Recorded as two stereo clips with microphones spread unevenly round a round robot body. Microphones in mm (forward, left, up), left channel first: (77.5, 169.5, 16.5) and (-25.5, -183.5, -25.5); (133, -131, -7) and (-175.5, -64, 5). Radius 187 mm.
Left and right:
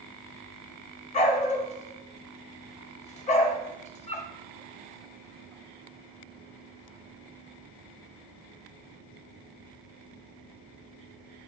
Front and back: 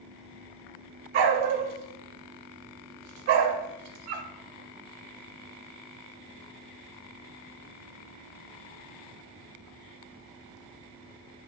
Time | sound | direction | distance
1.1 | a dog barking | 150° left | 0.6 m